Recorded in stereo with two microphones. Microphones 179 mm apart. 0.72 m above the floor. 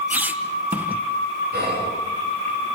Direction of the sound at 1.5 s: 60° right (ahead or behind).